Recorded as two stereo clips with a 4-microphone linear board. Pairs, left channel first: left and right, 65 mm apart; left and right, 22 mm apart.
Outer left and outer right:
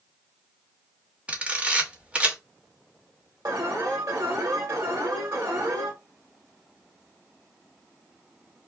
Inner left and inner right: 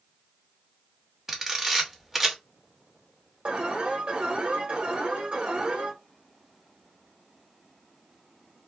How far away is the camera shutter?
About 1.1 m.